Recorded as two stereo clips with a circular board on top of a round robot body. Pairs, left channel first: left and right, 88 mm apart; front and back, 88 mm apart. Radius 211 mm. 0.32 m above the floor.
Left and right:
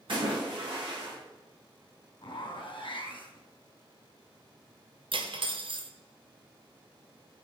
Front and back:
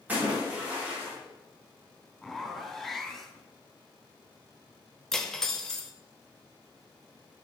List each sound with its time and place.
0.1 s a splash: 105° right, 5 m
2.2 s a zipper: 85° left, 3 m
5.1 s cutlery clinking: 85° right, 1.2 m